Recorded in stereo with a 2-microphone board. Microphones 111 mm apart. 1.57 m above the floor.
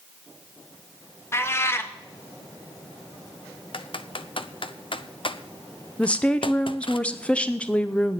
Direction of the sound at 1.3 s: 25° left (ahead or behind).